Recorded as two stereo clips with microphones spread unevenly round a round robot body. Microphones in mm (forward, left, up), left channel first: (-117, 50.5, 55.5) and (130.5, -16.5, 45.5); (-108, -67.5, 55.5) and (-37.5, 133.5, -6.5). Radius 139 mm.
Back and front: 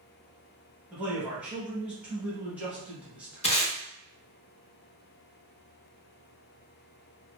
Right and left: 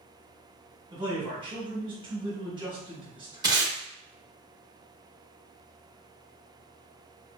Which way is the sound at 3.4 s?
110° left.